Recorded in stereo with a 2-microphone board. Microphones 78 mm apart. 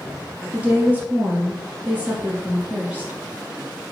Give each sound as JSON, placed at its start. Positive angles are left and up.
{"t": 0.5, "sound": "a woman speaking", "side_deg": -20, "distance_m": 2.0}